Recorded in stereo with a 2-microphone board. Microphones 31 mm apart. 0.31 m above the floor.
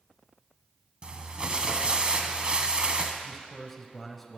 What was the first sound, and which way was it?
Crumpling, 30° right (ahead or behind).